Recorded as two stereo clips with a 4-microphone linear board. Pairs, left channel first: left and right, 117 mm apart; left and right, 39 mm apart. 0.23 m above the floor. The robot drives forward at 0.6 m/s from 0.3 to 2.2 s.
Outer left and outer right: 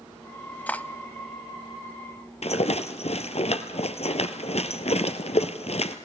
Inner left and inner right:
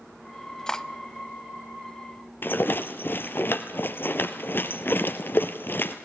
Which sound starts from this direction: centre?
Cutlery clinking, at 0.7 s.